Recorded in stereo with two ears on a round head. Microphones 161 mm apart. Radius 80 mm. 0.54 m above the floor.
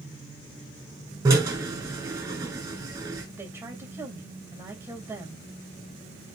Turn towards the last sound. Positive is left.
turn(degrees=-15)  # may be behind; listen again after turning